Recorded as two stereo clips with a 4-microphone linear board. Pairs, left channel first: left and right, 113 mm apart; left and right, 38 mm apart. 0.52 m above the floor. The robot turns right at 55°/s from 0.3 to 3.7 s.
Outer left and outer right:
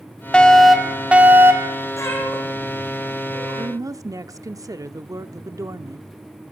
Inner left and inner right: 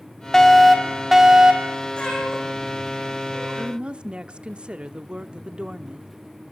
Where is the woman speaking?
35° right (ahead or behind), 0.8 m; by 6.1 s 30° right (ahead or behind), 0.8 m.